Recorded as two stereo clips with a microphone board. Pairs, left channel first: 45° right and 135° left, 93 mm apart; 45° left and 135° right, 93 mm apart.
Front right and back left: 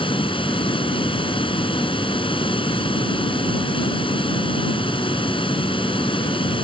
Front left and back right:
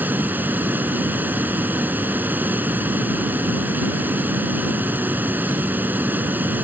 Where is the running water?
65° right.